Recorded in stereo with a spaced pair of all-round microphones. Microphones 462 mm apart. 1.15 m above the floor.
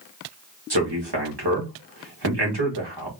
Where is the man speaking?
60° right (ahead or behind), 2.0 m.